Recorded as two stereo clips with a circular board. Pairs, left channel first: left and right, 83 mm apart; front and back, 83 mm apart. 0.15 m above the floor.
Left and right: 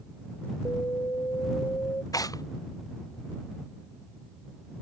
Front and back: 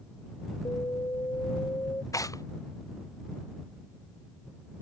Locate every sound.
0.7 s an alarm: 45° left
2.1 s tearing paper: 50° left